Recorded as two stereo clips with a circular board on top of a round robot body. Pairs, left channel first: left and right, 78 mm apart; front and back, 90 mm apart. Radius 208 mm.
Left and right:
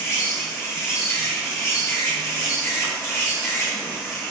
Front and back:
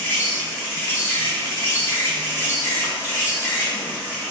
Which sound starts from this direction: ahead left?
An insect, at 0.0 s.